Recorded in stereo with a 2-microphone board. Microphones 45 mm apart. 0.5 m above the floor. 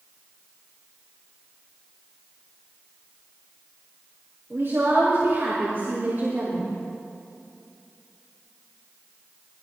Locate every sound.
4.5 s a woman speaking: 55° right (ahead or behind), 5.5 m; by 6.7 s 50° right (ahead or behind), 4 m